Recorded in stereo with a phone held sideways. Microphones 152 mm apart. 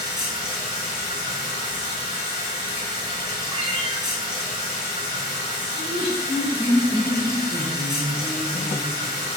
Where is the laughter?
35° right (ahead or behind), 0.9 m.